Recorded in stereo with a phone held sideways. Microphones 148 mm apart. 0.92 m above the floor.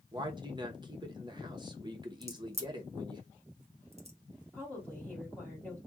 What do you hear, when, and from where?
0.1 s a man speaking: 30° right (ahead or behind), 0.7 m
2.2 s a crack: 45° right (ahead or behind), 0.8 m
4.5 s a woman speaking: 10° left (ahead or behind), 1.8 m